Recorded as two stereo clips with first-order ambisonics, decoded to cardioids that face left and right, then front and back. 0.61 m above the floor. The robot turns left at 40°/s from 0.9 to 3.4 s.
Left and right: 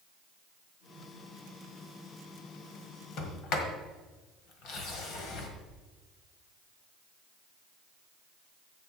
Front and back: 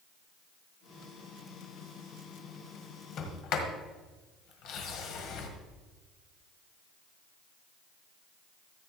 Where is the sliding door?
50° left, 1.6 m; by 5.5 s 40° left, 1.6 m.